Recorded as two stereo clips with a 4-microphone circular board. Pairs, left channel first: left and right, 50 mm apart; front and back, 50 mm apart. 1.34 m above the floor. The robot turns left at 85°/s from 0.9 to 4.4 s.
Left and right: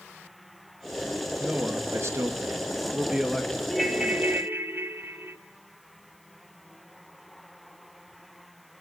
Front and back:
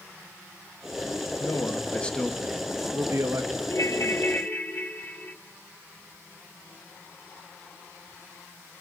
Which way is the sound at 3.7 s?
15° left.